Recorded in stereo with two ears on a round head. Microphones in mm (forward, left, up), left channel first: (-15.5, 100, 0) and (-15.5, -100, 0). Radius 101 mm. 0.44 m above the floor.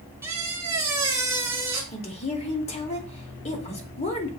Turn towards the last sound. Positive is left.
turn(degrees=30)  # may be behind; listen again after turning